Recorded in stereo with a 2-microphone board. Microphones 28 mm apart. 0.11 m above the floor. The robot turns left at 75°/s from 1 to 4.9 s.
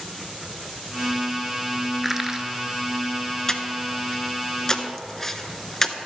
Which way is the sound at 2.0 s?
5° right (ahead or behind).